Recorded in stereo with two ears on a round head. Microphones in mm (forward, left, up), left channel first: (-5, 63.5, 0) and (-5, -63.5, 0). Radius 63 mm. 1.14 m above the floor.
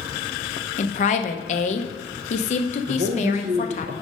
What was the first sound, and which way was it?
A woman speaking, 50° left (ahead or behind).